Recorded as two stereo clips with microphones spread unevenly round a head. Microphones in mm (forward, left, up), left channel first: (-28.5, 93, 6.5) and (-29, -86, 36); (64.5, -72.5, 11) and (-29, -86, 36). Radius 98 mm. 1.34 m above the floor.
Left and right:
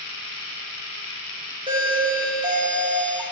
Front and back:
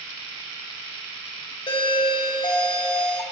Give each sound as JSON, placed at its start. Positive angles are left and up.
{"t": 1.7, "sound": "a doorbell", "azimuth_deg": -20, "distance_m": 1.3}